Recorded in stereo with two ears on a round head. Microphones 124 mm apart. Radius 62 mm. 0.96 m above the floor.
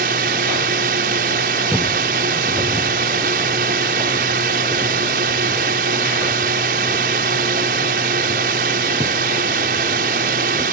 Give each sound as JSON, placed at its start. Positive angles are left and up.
{"t": 0.0, "sound": "a drone", "side_deg": -70}
{"t": 1.7, "sound": "footsteps", "side_deg": -10}